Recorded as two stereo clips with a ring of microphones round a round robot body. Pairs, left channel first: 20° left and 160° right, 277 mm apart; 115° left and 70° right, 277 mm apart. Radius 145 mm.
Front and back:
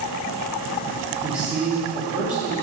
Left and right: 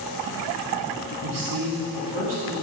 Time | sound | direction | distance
1.2 | a man speaking | 70° right | 2.0 m